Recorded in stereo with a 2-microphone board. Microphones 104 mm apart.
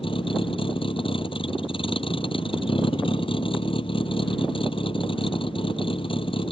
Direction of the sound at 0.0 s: 55° left (ahead or behind).